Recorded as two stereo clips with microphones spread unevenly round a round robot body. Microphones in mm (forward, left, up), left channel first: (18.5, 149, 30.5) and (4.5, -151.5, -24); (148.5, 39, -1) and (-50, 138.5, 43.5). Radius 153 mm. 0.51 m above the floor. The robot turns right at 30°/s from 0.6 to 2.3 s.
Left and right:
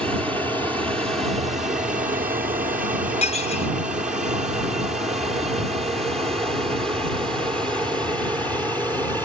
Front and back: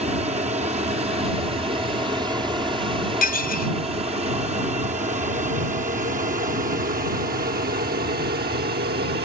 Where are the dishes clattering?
15° left.